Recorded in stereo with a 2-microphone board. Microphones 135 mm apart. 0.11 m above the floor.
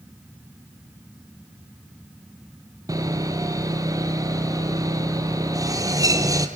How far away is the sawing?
About 1.6 m.